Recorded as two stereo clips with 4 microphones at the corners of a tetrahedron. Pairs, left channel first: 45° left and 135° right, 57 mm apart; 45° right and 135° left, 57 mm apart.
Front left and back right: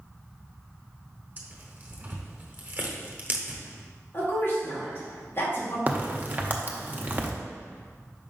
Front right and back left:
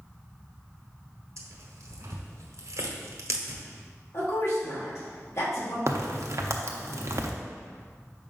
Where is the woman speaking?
10° right, 2.5 m.